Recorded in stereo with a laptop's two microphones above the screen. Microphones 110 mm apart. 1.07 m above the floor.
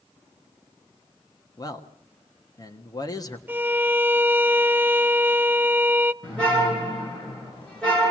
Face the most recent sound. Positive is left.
turn(degrees=10)  # may be behind; listen again after turning